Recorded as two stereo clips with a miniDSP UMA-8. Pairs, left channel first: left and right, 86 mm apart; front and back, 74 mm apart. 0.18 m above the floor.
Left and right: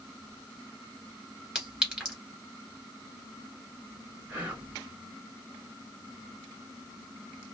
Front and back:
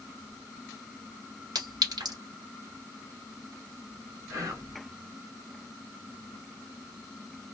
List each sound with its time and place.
1.6 s a clink: 170° right, 1.6 m
4.3 s whispering: 155° right, 1.8 m